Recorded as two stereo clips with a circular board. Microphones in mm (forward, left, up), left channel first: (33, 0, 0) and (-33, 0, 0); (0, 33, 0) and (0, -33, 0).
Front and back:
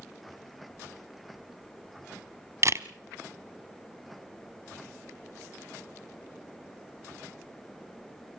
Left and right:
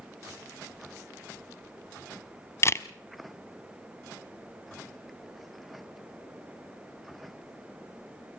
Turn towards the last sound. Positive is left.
turn(degrees=140)